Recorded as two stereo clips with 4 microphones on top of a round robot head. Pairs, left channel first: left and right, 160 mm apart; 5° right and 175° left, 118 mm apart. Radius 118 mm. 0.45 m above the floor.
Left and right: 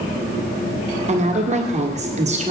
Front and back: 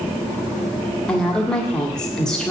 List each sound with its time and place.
1.1 s a woman speaking: 90° right, 1.5 m